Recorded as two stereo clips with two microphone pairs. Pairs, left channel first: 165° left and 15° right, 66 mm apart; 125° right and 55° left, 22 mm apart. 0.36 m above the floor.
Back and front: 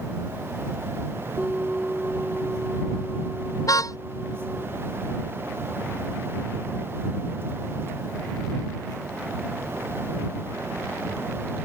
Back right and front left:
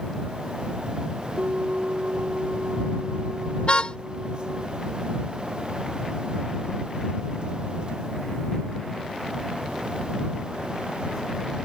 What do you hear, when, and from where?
1.4 s a bell: 60° left
3.7 s a car horn: 165° right